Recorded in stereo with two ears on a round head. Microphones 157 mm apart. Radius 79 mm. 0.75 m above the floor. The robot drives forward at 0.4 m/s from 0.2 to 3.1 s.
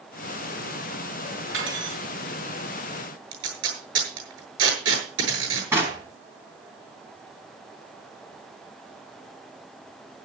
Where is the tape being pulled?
80° right, 7.5 m.